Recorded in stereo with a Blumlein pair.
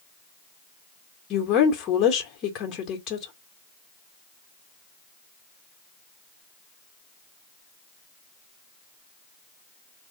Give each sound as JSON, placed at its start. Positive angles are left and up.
{"t": 1.3, "sound": "a woman speaking", "azimuth_deg": 30, "distance_m": 1.1}